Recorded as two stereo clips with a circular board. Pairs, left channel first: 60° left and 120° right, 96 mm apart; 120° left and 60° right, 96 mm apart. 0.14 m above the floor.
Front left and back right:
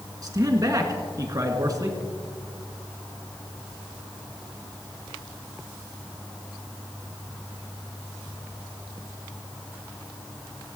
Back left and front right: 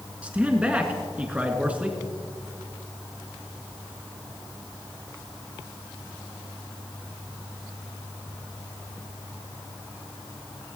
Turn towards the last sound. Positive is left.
turn(degrees=-130)